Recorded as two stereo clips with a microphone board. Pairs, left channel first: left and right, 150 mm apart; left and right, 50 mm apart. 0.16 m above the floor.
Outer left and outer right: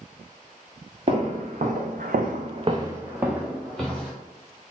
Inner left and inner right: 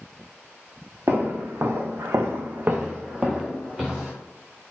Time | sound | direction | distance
1.1 | footsteps | 45° right (ahead or behind) | 1.2 m